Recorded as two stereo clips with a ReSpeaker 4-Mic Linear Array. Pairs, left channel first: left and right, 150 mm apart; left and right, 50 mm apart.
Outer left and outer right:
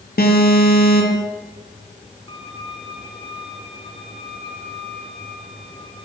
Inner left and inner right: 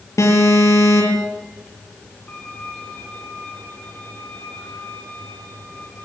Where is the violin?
30° left (ahead or behind), 5 m.